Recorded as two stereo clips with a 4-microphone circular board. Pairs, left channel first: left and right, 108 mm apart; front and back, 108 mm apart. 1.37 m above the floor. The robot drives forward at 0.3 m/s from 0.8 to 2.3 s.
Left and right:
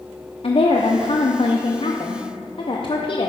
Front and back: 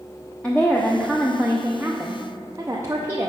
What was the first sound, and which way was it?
A woman speaking, 80° left.